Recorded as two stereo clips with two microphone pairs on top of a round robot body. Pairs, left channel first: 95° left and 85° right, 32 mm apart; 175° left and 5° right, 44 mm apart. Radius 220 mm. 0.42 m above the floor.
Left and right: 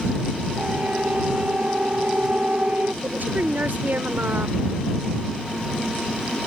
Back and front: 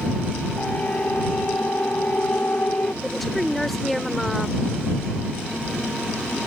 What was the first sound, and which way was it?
A siren, 130° right.